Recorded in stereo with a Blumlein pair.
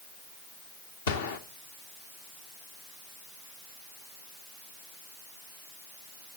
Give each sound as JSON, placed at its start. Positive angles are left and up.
{"t": 1.1, "sound": "a gunshot", "azimuth_deg": 60, "distance_m": 1.3}